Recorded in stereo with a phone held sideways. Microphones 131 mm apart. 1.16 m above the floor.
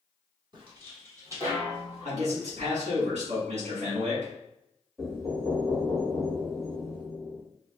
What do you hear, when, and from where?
0.5 s footsteps: 35° right (ahead or behind), 1.4 m; by 2.1 s 10° right (ahead or behind), 1.8 m
2.0 s a man speaking: 60° right (ahead or behind), 1.5 m
5.0 s knocking: 5° left (ahead or behind), 1.6 m